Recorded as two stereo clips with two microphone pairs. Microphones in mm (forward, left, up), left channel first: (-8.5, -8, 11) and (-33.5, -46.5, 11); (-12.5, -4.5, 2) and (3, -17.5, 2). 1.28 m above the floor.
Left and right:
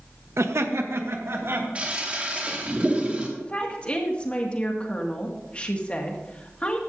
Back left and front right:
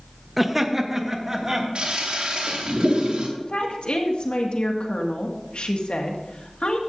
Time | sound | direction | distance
0.4 | laughter | 115° right | 1.0 m
1.8 | a toilet flushing | 65° right | 2 m
3.4 | a woman speaking | 120° left | 2 m